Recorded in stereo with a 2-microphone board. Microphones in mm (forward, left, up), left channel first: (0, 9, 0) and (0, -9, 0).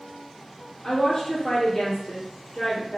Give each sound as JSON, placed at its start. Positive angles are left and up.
{"t": 0.8, "sound": "a woman speaking", "side_deg": 45, "distance_m": 1.9}